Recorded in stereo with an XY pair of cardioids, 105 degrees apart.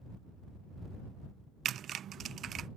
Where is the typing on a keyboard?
60° right.